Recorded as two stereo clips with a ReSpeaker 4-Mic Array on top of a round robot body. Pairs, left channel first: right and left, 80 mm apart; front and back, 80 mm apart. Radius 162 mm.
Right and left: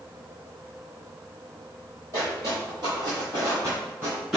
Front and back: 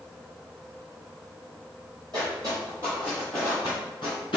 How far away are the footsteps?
About 1.5 m.